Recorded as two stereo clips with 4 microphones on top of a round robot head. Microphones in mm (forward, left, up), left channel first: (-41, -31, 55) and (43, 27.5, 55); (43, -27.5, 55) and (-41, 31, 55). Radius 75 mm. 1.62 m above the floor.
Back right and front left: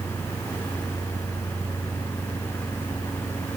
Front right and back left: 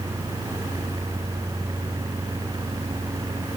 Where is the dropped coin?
I don't hear a dropped coin.